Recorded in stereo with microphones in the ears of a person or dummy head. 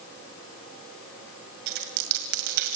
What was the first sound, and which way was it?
A dropped coin, 45° right (ahead or behind).